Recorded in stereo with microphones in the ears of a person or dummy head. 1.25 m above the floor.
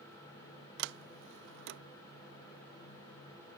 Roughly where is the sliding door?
Right.